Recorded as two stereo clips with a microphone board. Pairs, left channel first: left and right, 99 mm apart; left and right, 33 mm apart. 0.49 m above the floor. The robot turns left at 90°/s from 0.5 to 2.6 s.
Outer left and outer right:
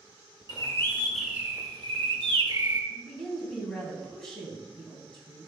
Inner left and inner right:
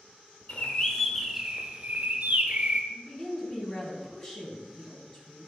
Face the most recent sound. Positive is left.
turn(degrees=5)  # may be behind; listen again after turning